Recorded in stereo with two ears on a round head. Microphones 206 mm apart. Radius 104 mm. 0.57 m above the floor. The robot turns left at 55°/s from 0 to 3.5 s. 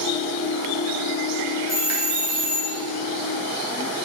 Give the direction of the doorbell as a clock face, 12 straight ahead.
1 o'clock.